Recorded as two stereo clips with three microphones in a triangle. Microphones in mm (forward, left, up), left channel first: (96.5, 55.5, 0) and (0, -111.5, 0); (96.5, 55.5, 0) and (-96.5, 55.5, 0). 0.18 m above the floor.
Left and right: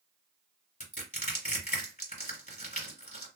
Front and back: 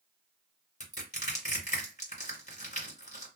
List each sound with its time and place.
0.8 s crushing: 35° left, 2 m